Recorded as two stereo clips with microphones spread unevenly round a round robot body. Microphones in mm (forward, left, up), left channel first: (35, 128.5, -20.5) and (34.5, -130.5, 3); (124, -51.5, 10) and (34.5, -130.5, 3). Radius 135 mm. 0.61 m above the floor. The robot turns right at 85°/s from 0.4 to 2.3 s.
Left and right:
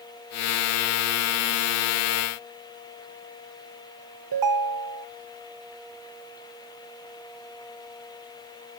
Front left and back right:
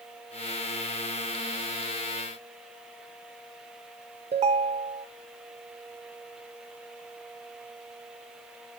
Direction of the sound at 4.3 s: 105° right.